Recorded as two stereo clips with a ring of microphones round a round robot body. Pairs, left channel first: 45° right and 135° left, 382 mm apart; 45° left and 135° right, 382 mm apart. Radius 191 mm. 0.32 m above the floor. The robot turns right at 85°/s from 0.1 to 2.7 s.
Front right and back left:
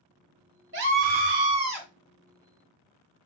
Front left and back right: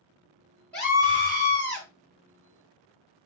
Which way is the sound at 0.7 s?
130° left.